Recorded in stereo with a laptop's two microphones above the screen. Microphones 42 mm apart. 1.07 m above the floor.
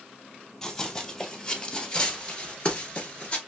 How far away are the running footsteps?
About 1.7 m.